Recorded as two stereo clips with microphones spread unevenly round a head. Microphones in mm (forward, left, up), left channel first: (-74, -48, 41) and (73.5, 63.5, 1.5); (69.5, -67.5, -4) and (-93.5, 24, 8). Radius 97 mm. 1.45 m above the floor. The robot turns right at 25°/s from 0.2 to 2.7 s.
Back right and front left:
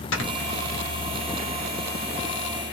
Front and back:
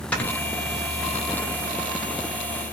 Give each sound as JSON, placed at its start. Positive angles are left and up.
{"t": 0.1, "sound": "snoring", "azimuth_deg": -110, "distance_m": 1.0}